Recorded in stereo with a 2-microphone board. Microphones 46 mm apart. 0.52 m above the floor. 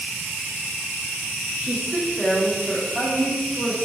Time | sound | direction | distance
1.6 | a woman speaking | 20° right (ahead or behind) | 0.7 m